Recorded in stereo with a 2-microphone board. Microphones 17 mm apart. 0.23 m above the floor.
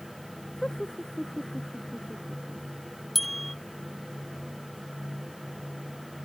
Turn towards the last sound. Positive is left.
turn(degrees=5)  # may be behind; listen again after turning